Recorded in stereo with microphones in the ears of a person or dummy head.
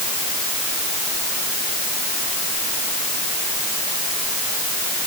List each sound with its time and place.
Only background noise.